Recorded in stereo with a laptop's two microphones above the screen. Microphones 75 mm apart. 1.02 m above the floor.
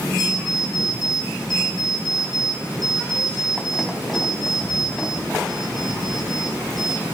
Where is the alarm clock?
Centre (ahead or behind), 4 m.